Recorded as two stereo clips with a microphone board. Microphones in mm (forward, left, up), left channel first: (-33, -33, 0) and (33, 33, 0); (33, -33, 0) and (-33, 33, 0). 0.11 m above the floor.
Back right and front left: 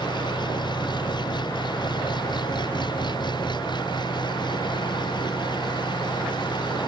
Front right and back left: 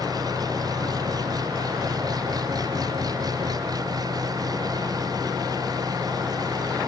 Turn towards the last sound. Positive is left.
turn(degrees=-175)